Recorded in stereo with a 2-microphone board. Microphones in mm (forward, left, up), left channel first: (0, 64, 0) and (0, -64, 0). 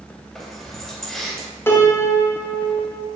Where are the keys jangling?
5° left (ahead or behind), 2.5 m.